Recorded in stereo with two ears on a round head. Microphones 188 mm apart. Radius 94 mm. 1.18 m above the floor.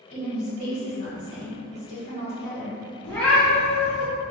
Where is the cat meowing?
10° left (ahead or behind), 1.0 m.